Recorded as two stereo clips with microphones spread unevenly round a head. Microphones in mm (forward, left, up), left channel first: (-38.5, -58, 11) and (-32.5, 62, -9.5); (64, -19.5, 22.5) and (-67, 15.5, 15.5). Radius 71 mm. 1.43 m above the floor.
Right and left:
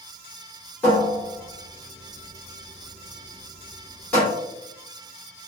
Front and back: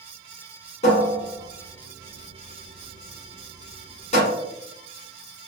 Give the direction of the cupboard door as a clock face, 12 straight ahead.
1 o'clock.